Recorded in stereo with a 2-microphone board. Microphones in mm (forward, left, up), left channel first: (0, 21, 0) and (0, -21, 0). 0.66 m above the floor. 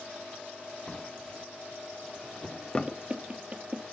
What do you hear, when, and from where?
0.9 s a drawer: 20° left (ahead or behind), 0.6 m
2.9 s knocking: 30° right (ahead or behind), 0.9 m